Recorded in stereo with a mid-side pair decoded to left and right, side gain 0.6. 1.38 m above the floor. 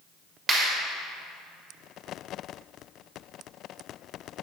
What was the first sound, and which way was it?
A clap, 20° right.